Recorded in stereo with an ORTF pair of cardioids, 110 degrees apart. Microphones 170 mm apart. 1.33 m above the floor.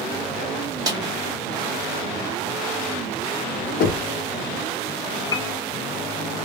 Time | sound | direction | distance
0.9 | a snare drum | 20° right | 0.9 m
3.8 | knocking | 60° left | 0.7 m
5.3 | a piano | 25° left | 0.6 m